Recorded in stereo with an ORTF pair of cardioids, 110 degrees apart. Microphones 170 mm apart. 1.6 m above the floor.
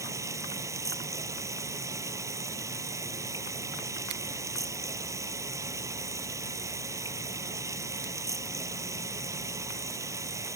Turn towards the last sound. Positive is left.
turn(degrees=-20)